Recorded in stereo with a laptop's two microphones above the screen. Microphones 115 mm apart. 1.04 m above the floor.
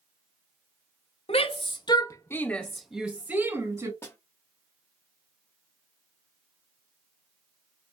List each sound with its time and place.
1.3 s a shout: 60° left (ahead or behind), 1.1 m; by 3.9 s 25° right (ahead or behind), 1.6 m
4.0 s a snare drum: 20° left (ahead or behind), 1.6 m